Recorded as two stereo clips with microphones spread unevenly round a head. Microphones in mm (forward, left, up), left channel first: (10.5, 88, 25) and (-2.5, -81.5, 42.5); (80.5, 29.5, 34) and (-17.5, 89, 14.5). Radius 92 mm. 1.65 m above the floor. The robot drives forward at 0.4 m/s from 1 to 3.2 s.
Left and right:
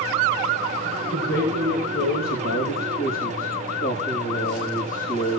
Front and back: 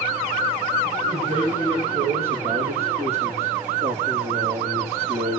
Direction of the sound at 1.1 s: 110° left.